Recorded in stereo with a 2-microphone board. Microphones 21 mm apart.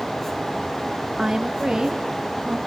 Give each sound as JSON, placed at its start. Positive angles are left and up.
{"t": 1.2, "sound": "a woman speaking", "side_deg": -20, "distance_m": 1.2}